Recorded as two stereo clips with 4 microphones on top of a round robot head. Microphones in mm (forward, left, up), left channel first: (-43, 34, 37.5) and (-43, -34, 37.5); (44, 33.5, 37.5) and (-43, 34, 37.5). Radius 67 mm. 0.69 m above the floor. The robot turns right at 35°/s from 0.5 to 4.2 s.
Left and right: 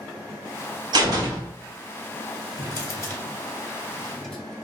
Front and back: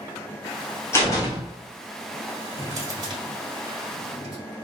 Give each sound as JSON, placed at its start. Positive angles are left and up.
{"t": 0.9, "sound": "a door slam", "azimuth_deg": -65, "distance_m": 1.2}
{"t": 2.6, "sound": "a drawer", "azimuth_deg": 115, "distance_m": 1.7}